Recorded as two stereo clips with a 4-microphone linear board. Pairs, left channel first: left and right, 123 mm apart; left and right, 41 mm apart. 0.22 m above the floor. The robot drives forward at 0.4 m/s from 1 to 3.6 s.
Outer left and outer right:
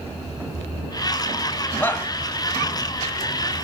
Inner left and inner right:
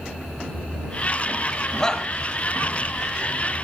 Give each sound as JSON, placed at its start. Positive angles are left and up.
{"t": 1.8, "sound": "a shout", "side_deg": 15, "distance_m": 1.7}